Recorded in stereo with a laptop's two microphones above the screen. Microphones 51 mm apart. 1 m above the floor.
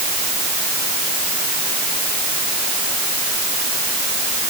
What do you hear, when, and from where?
Only background noise.